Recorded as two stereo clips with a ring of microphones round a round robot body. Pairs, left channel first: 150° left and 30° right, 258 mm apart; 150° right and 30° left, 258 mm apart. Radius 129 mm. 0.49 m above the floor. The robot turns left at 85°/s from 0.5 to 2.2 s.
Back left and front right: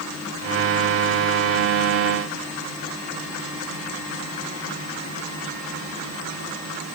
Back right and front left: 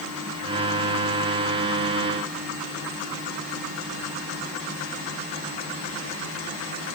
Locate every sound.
Only background noise.